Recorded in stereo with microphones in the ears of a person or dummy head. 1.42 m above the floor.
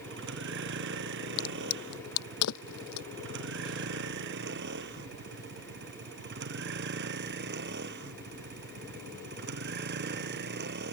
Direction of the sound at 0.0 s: 60° right (ahead or behind).